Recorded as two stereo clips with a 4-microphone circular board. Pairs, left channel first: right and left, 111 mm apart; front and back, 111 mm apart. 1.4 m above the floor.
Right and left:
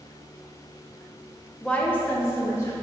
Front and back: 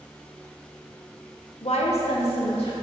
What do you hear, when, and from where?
1.6 s a woman speaking: 10° right, 1.2 m; by 2.7 s 30° right, 2.5 m